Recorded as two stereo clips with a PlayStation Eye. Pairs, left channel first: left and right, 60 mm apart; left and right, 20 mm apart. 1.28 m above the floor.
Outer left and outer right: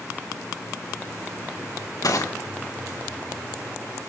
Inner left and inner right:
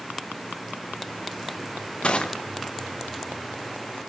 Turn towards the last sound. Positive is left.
turn(degrees=70)  # may be behind; listen again after turning